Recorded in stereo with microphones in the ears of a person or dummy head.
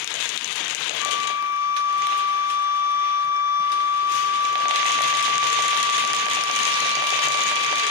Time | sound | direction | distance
1.0 | a flute | 70° left (ahead or behind) | 0.8 m